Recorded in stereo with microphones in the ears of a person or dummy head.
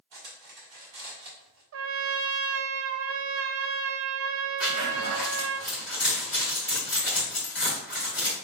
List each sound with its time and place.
0.1 s cutlery clinking: 60° right (ahead or behind), 2.5 m
1.7 s a trumpet: 75° right (ahead or behind), 0.7 m
4.6 s a zipper: centre (ahead or behind), 3 m